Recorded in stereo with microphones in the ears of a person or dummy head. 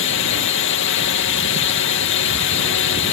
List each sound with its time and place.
0.0 s a drone: 65° left (ahead or behind)